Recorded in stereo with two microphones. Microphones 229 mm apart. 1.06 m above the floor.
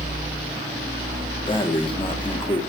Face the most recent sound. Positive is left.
turn(degrees=20)  # may be behind; listen again after turning